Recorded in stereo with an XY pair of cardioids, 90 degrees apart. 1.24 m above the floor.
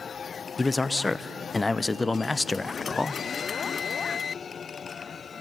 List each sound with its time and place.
0.6 s a man speaking: 25° left, 0.5 m